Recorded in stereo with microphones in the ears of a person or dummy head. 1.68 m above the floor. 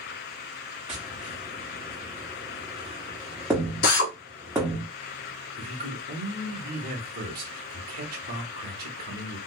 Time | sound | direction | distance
0.9 | tapping | 5° right (ahead or behind) | 1.2 m
3.8 | a drill | 50° left (ahead or behind) | 1.0 m
5.6 | a man speaking | 50° right (ahead or behind) | 1.0 m